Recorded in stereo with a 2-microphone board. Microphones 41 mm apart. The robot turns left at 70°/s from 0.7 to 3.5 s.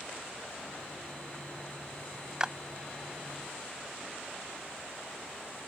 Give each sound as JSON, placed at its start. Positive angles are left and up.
{"t": 2.4, "sound": "a clap", "side_deg": -20}